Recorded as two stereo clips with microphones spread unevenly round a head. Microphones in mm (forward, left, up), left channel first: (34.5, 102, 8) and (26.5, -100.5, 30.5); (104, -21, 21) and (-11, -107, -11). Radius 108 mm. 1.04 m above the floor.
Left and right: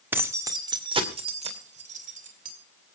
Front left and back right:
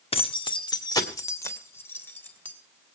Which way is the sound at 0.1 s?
10° right.